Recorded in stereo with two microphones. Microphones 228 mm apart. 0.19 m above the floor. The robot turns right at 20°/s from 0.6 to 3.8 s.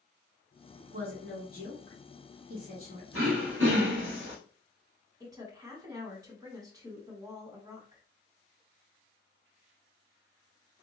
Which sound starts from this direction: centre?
A woman speaking, at 5.2 s.